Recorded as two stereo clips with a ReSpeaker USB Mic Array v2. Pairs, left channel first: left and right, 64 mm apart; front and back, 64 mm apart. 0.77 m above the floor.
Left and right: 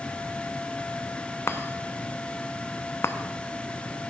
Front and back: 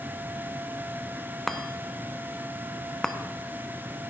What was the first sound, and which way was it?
A chime, 80° left.